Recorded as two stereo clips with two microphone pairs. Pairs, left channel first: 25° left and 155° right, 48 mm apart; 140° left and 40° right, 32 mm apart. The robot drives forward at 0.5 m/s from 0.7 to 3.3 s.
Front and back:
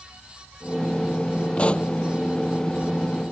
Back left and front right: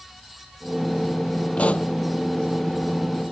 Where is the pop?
95° left.